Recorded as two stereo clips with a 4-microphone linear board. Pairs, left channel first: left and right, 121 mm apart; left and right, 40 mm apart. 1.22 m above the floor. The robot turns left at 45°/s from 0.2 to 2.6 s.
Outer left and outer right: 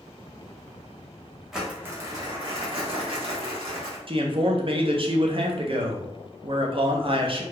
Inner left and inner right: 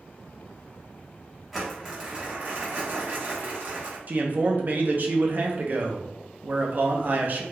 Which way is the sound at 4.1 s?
50° right (ahead or behind).